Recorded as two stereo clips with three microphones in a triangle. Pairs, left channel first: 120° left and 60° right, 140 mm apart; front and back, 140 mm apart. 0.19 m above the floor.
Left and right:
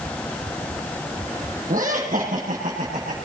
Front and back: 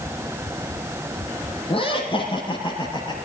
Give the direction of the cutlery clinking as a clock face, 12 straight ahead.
I don't hear cutlery clinking.